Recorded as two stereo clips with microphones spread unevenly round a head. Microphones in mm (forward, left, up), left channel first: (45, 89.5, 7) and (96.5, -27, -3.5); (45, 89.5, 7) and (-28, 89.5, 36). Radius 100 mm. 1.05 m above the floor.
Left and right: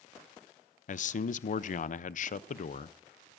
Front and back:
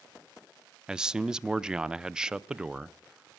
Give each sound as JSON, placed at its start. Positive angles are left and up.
{"t": 0.9, "sound": "a man speaking", "azimuth_deg": 90, "distance_m": 0.5}